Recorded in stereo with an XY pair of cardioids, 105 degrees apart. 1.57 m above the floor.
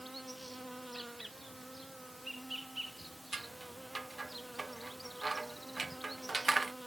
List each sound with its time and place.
0.0 s an insect: 5° right
3.3 s scissors: 25° right